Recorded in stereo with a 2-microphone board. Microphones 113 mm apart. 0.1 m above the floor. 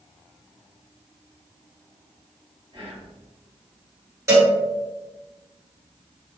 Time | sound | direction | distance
2.7 | whispering | 55° right (ahead or behind) | 1.9 m
4.3 | a cowbell | 25° right (ahead or behind) | 2.0 m